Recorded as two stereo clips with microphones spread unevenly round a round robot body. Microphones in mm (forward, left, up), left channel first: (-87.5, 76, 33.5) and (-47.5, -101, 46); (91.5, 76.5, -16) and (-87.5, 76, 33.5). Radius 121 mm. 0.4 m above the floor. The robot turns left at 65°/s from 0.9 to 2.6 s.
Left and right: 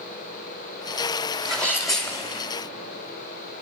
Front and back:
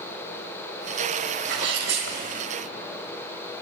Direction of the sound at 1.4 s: 165° right.